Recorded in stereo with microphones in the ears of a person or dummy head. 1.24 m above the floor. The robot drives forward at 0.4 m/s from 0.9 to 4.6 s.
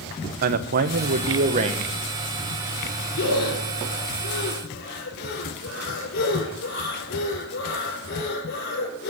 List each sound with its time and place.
0.4 s a man speaking: 45° right (ahead or behind), 0.8 m; by 2.0 s 30° right (ahead or behind), 1.1 m
3.2 s breathing: 55° left (ahead or behind), 4.5 m; by 9.1 s 60° left (ahead or behind), 4 m